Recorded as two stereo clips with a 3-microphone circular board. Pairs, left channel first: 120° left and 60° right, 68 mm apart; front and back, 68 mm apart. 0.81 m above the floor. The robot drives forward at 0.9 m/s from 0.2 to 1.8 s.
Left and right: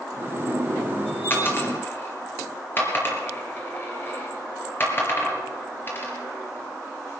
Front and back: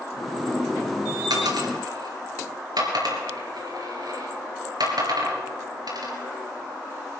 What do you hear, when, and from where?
1.3 s a dropped coin: straight behind, 3 m